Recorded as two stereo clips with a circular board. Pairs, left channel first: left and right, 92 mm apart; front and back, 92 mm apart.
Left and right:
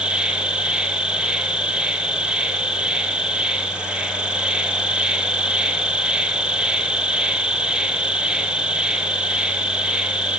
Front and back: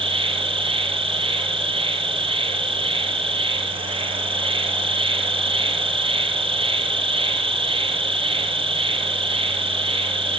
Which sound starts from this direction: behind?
An insect, at 0.0 s.